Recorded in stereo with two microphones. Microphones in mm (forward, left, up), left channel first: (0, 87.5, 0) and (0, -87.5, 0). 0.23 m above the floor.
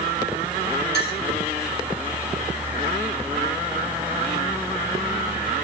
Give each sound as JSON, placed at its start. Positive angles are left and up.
{"t": 0.9, "sound": "a clink", "side_deg": 80, "distance_m": 5.0}